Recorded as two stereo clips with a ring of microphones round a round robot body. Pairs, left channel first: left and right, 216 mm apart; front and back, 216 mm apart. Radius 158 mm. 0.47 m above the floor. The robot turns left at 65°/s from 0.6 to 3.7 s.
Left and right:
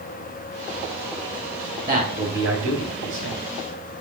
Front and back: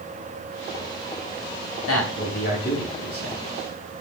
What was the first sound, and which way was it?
A man speaking, 15° right.